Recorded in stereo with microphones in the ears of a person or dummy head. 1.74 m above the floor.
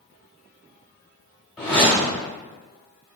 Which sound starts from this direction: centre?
A whoosh, at 1.6 s.